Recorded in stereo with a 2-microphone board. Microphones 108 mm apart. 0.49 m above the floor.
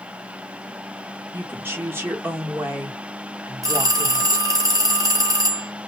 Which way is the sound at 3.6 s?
30° right (ahead or behind).